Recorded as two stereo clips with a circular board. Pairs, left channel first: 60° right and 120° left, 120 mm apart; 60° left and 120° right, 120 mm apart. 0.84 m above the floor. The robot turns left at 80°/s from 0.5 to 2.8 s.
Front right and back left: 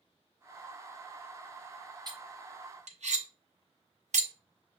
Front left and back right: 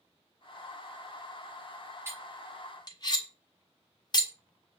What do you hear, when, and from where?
2.1 s cutlery clinking: 175° left, 0.9 m; by 4.3 s 115° left, 0.9 m